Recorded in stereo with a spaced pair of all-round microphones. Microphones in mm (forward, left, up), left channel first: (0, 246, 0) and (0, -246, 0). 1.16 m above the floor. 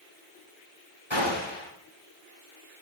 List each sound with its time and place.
1.1 s a gunshot: 65° left (ahead or behind), 7.5 m